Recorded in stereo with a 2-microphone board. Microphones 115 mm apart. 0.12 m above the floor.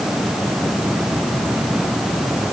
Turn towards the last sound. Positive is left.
No sound to turn to.